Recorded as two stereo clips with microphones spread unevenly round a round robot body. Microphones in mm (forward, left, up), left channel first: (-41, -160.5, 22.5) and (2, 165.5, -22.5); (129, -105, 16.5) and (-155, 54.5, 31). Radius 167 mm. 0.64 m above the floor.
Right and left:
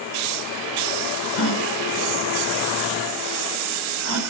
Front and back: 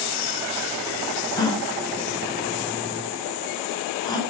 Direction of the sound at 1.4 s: 105° right.